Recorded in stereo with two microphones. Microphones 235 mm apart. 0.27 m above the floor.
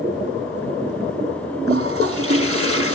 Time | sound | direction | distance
1.7 | a toilet flushing | 65° right (ahead or behind) | 1.3 m